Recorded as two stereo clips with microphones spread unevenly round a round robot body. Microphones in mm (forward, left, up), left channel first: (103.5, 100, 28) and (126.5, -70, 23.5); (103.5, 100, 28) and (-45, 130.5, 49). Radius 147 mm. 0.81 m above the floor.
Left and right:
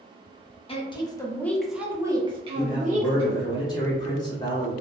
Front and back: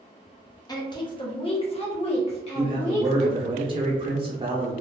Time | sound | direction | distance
0.7 | a woman speaking | 45° left | 1.0 m
2.5 | a man speaking | 140° left | 0.7 m